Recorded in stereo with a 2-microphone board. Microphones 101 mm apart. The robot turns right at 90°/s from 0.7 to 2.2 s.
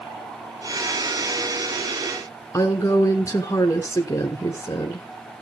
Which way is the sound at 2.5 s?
35° left (ahead or behind).